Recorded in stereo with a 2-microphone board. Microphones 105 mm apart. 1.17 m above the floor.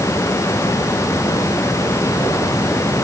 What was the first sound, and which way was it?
Only background noise.